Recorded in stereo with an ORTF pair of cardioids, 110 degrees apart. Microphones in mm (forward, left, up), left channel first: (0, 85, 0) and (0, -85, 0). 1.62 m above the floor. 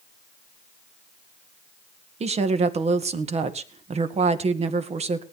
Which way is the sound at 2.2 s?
40° right.